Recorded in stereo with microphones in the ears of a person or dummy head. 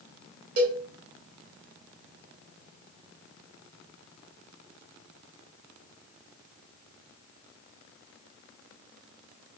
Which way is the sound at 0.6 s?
70° right (ahead or behind).